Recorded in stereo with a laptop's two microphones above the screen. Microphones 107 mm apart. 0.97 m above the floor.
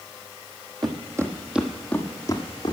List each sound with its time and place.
0.8 s footsteps: 40° right (ahead or behind), 1.7 m; by 2.7 s 45° left (ahead or behind), 2 m